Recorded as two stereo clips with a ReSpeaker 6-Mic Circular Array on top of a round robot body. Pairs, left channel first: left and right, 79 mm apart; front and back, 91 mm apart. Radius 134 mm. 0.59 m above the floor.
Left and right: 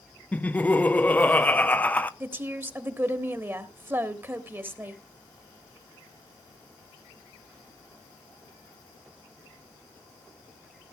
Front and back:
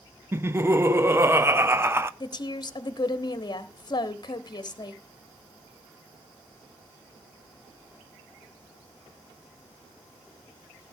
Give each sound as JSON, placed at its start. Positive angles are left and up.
{"t": 0.3, "sound": "laughter", "azimuth_deg": 145, "distance_m": 1.0}
{"t": 2.2, "sound": "a woman speaking", "azimuth_deg": -30, "distance_m": 1.5}